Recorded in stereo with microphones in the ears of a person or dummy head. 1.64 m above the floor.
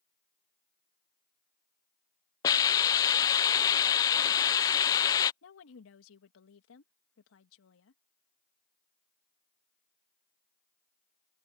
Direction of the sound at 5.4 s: 80° left.